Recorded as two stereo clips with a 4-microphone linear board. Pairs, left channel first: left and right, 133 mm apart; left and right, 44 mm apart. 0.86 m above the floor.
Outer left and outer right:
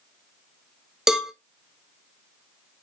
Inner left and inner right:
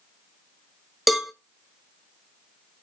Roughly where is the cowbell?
Centre.